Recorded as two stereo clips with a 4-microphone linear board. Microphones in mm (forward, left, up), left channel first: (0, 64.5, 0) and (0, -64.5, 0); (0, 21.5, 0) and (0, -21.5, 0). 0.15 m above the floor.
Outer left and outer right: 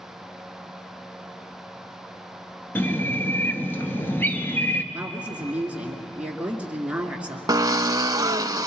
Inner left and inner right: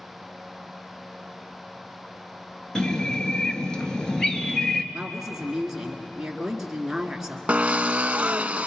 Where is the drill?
30° right (ahead or behind), 0.5 m.